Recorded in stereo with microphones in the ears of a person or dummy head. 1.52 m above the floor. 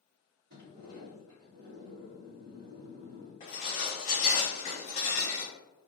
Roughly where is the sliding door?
Right.